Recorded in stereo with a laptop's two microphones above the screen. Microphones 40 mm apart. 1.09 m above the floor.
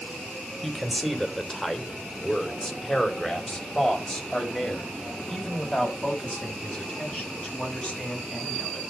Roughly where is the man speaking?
Centre.